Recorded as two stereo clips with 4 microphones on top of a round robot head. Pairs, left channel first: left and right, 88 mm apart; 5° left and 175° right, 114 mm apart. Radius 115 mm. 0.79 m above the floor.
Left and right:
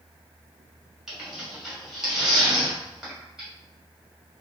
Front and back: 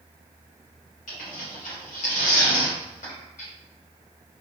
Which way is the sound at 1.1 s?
5° right.